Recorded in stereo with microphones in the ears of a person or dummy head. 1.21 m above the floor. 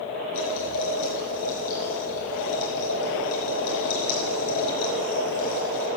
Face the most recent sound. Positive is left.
turn(degrees=65)  # may be behind; listen again after turning